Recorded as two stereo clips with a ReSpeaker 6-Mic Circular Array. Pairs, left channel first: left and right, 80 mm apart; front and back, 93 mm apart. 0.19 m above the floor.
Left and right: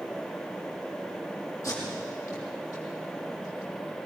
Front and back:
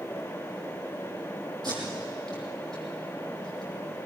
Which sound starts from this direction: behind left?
Tape being pulled, at 1.6 s.